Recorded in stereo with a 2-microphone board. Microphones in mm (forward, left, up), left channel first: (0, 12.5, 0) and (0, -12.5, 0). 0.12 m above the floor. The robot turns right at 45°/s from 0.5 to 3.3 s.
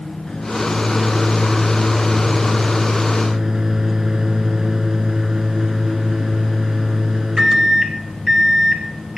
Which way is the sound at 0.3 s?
30° left (ahead or behind).